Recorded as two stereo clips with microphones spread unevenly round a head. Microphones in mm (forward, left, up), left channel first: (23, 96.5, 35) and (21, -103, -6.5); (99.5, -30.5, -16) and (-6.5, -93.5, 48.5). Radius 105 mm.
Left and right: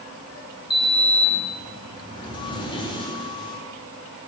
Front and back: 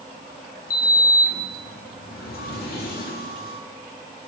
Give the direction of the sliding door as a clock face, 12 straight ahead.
10 o'clock.